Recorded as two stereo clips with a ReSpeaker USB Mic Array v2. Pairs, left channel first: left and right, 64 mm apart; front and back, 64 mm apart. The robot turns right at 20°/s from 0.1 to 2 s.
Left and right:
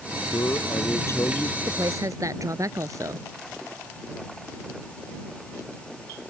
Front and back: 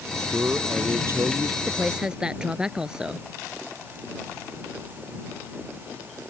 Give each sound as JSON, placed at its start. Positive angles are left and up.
{"t": 0.3, "sound": "a man speaking", "azimuth_deg": 120}
{"t": 1.7, "sound": "a woman speaking", "azimuth_deg": -110}